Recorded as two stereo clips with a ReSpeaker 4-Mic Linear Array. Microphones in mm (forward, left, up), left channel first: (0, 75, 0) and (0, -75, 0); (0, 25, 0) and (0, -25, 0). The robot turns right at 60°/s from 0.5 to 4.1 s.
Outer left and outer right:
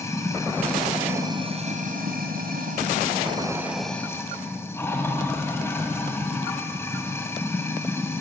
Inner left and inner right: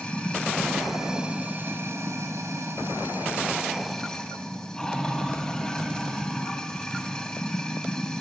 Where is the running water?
160° left, 3 m; by 8.2 s 15° left, 3 m.